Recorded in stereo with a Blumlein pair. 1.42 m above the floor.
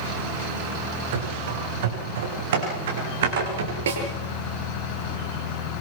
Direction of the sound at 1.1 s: 55° right.